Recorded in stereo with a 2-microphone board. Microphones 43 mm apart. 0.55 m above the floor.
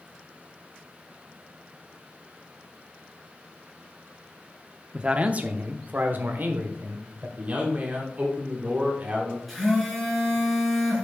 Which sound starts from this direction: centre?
A phone buzzing, at 9.5 s.